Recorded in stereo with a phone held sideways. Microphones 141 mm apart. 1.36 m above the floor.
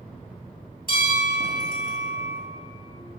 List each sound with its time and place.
0.9 s a bell: 70° left (ahead or behind), 3.5 m